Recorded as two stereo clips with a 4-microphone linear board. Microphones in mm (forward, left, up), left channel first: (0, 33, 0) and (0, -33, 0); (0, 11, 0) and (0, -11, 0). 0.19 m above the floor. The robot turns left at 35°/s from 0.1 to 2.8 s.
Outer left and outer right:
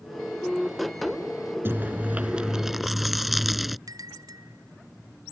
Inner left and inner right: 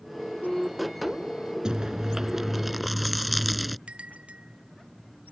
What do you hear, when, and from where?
1.6 s chewing: 135° right; by 3.8 s straight behind
3.9 s a bell: 80° right